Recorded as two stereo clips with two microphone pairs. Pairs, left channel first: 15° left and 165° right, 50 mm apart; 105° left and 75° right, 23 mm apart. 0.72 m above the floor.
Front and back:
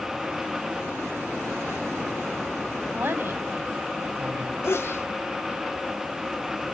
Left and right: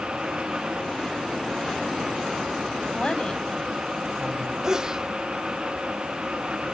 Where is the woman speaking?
150° left, 4 m.